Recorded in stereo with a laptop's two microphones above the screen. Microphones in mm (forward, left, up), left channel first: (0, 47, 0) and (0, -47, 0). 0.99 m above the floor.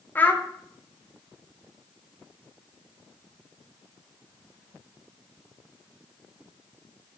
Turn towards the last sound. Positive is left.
turn(degrees=20)  # may be behind; listen again after turning